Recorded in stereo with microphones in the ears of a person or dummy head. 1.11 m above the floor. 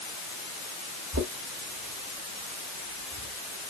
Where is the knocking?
85° right, 2.5 m.